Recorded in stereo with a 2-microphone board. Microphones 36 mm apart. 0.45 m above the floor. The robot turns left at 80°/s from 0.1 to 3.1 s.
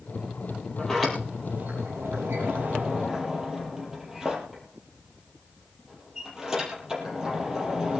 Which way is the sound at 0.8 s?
25° left (ahead or behind).